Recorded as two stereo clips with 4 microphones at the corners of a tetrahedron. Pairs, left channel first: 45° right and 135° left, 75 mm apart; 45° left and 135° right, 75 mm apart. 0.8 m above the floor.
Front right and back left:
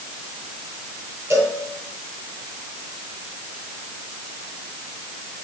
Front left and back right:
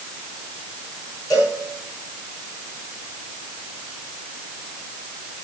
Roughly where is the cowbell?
Left.